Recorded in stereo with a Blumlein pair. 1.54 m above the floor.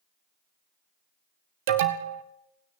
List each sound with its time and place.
1.7 s an alarm: 50° right, 1.6 m